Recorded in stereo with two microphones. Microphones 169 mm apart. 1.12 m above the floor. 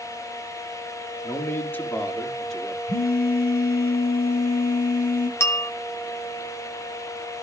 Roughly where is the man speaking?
Centre.